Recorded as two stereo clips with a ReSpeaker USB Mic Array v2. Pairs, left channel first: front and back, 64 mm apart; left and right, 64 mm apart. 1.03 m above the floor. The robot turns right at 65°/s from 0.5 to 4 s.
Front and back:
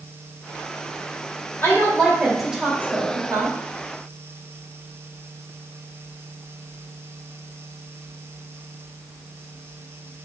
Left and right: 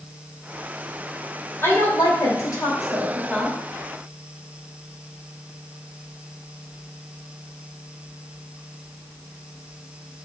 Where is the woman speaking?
45° left, 3 m; by 3.5 s 170° left, 3 m.